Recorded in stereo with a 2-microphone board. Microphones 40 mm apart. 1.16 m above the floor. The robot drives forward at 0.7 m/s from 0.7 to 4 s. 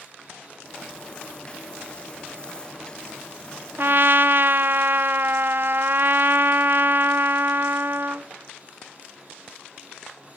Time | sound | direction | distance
3.8 | a trumpet | 55° right (ahead or behind) | 0.7 m